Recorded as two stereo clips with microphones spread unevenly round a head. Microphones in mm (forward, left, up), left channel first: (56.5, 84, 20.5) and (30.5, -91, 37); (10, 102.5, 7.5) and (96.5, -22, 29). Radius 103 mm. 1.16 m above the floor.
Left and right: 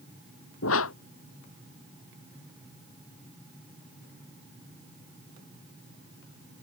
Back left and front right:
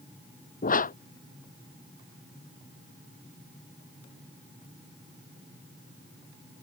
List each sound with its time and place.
0.6 s a whoosh: 95° left